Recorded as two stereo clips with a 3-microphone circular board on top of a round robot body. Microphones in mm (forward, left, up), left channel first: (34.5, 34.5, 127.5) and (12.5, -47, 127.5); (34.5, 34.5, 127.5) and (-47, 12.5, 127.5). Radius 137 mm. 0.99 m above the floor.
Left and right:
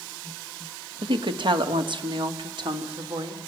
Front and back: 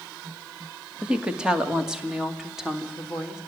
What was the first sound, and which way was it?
A woman speaking, 85° right.